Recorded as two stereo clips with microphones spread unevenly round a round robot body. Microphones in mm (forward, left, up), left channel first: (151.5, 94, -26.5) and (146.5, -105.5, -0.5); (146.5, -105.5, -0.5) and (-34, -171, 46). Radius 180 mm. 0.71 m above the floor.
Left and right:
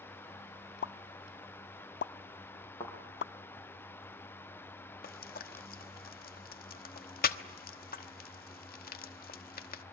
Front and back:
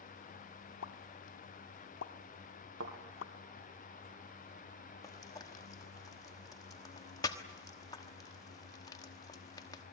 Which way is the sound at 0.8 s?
55° left.